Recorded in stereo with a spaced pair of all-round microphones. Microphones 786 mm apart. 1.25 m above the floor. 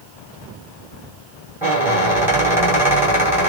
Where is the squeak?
5° right (ahead or behind), 1.5 m.